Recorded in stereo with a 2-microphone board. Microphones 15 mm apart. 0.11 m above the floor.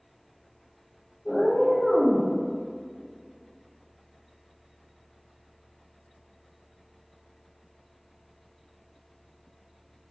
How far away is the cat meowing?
About 0.9 m.